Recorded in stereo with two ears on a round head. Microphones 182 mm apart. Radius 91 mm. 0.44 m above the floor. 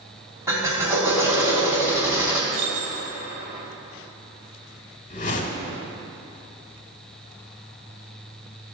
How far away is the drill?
About 3 m.